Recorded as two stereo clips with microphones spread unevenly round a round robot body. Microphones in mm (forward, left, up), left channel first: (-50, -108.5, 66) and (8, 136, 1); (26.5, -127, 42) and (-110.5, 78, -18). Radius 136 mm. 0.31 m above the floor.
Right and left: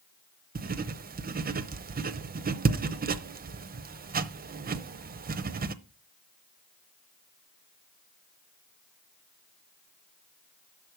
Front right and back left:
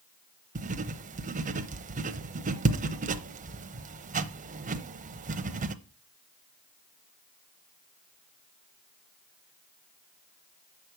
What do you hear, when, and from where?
0.6 s writing: 95° left, 0.7 m